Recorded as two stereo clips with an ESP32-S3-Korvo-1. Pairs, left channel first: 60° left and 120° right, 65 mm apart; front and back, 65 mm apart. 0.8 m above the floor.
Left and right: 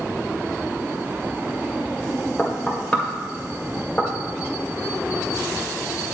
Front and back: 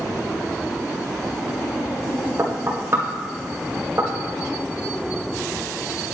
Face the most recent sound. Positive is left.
turn(degrees=130)